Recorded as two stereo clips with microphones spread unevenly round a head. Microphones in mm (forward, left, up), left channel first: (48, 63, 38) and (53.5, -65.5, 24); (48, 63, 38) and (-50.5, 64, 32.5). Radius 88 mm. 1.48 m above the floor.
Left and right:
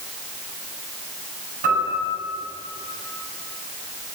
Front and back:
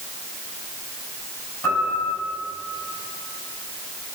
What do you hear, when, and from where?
1.6 s a piano: 80° right, 9.5 m